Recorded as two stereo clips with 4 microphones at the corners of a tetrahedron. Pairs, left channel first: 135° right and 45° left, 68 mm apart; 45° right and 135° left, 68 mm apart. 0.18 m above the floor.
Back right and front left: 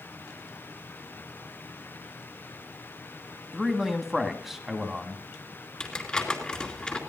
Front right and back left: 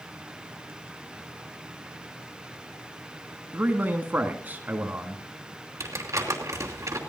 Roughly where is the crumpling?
Behind left.